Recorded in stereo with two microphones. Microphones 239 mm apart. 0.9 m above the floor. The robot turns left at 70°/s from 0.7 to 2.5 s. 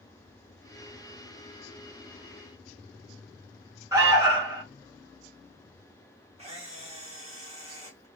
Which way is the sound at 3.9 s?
10° right (ahead or behind).